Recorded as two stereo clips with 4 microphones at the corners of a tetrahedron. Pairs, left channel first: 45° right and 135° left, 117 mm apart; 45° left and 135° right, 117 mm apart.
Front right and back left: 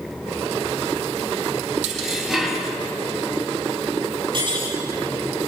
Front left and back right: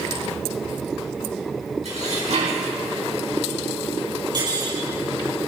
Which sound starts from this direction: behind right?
Dishes clattering, at 1.9 s.